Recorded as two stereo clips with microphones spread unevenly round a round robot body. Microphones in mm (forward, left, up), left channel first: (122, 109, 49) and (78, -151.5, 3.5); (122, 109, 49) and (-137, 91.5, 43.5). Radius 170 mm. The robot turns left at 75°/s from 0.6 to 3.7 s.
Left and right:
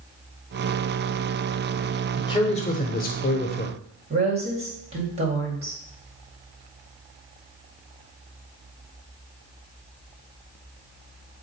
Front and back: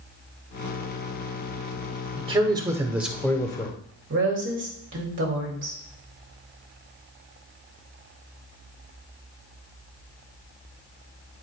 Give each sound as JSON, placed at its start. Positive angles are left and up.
{"t": 2.2, "sound": "a man speaking", "azimuth_deg": 170, "distance_m": 1.0}
{"t": 4.1, "sound": "a woman speaking", "azimuth_deg": -150, "distance_m": 2.0}